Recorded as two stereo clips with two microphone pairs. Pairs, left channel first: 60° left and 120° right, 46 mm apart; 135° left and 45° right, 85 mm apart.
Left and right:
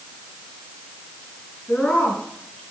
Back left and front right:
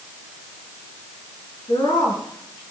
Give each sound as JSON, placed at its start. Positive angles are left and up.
{"t": 1.7, "sound": "a woman speaking", "azimuth_deg": 125, "distance_m": 4.5}